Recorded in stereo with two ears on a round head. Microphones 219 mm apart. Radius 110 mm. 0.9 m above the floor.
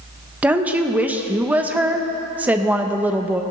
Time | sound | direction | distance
0.4 | a woman speaking | 5° right (ahead or behind) | 0.8 m